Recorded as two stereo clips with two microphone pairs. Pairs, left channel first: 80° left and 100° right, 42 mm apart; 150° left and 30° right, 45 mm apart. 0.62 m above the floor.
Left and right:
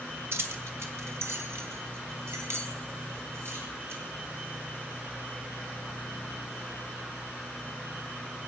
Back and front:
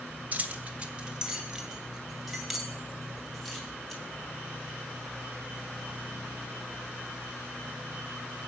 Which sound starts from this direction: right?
Keys jangling, at 0.3 s.